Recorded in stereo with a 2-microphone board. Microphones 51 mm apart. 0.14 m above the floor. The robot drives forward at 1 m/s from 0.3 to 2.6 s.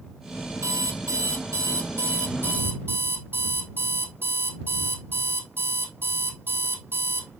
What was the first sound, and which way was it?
An alarm clock, 75° right (ahead or behind).